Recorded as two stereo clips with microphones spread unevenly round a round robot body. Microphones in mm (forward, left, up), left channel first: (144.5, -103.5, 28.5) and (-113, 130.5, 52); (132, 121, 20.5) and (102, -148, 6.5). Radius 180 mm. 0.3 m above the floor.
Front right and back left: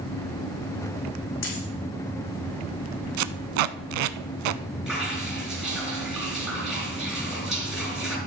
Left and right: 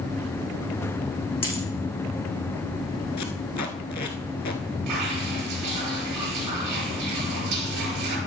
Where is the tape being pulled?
150° left, 0.6 m.